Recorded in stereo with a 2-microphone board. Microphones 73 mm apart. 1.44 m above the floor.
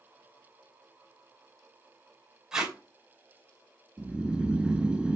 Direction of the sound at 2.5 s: 10° right (ahead or behind).